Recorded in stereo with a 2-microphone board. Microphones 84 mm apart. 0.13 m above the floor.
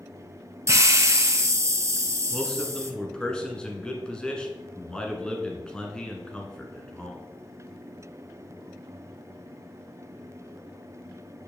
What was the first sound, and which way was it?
A hiss, 35° right (ahead or behind).